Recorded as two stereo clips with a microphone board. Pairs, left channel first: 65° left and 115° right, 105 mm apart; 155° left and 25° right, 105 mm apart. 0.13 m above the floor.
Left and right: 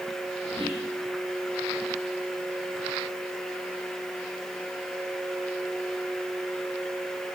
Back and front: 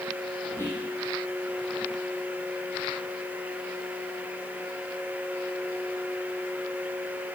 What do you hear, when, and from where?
0.6 s whispering: 140° right, 5 m